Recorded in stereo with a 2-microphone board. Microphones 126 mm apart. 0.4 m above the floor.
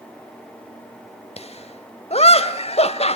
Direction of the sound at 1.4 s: 55° left (ahead or behind).